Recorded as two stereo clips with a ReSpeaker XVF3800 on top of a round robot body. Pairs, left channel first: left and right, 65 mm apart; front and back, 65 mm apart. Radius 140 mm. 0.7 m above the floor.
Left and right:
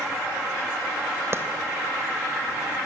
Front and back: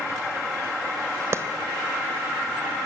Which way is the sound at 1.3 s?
135° right.